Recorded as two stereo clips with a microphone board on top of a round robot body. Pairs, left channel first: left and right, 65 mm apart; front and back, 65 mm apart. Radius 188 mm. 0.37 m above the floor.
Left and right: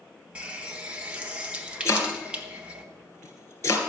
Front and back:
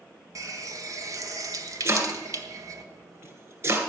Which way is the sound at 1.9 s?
135° left.